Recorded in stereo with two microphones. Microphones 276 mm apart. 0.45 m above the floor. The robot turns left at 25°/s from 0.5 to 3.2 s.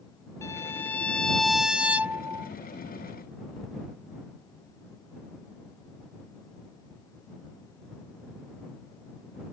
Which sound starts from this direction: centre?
A violin, at 0.4 s.